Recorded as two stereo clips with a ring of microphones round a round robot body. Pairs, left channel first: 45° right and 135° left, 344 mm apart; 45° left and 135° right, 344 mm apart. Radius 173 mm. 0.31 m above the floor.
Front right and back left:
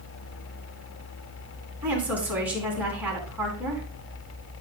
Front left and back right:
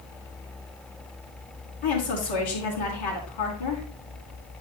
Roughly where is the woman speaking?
Ahead left.